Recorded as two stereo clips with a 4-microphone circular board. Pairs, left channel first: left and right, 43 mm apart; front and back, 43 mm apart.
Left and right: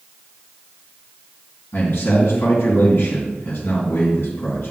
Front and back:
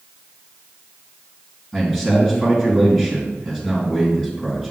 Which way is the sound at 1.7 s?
75° left.